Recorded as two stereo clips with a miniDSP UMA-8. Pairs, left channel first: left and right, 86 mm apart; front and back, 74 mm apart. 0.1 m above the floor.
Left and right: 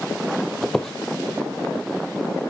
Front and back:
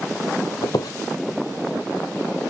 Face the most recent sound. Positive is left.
turn(degrees=5)